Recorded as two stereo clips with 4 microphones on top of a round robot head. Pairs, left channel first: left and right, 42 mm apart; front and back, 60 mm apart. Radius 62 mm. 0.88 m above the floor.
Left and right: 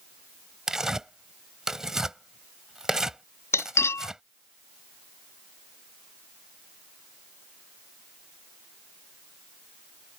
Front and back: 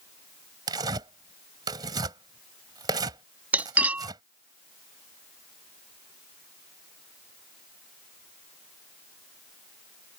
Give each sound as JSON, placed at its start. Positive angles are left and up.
{"t": 0.7, "sound": "tearing paper", "azimuth_deg": -170}
{"t": 3.5, "sound": "cutlery clinking", "azimuth_deg": 115}